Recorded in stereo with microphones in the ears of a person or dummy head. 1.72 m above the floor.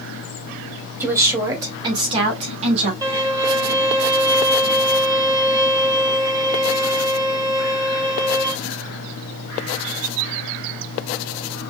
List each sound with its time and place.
1.0 s a woman speaking: 10° right (ahead or behind), 2 m; by 2.9 s 35° right (ahead or behind), 2.5 m
3.0 s a violin: 20° right (ahead or behind), 1.6 m